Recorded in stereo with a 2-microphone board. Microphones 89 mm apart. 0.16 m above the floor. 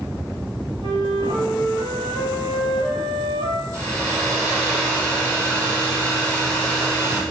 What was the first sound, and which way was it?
A flute, 75° right (ahead or behind).